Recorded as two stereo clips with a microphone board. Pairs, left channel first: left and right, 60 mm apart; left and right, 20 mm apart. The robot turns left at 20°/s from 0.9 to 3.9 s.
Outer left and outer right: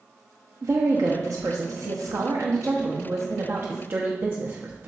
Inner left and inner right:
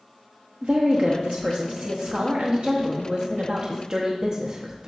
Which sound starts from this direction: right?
A woman speaking, at 0.6 s.